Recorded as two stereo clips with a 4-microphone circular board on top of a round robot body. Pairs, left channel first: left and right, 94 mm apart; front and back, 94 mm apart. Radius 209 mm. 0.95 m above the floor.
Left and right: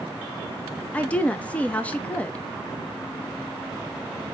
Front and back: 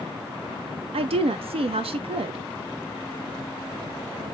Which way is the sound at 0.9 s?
165° left.